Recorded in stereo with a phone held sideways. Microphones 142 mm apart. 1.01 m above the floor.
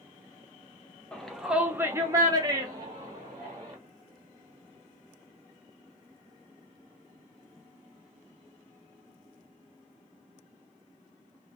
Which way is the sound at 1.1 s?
5° left (ahead or behind).